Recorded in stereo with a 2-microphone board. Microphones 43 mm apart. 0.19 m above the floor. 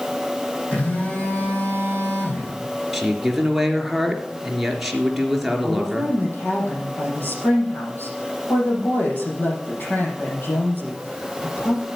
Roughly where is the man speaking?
Centre.